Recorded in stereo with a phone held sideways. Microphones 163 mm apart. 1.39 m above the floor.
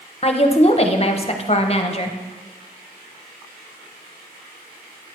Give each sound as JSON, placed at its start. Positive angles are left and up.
{"t": 0.2, "sound": "a woman speaking", "side_deg": 40, "distance_m": 0.8}